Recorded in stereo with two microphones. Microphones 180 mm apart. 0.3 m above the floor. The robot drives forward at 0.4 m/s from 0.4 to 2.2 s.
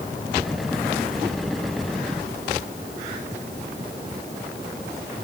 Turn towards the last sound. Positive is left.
No sound to turn to.